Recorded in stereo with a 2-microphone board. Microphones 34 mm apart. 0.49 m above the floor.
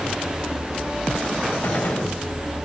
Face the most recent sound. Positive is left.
turn(degrees=65)  # may be behind; listen again after turning